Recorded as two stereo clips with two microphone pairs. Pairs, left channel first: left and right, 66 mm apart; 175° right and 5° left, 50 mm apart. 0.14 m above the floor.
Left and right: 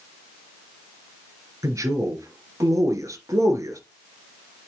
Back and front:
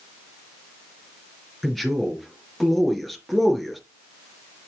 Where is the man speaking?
85° right, 2 m.